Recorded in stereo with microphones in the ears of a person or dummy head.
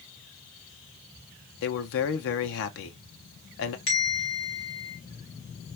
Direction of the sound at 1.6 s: 65° left (ahead or behind).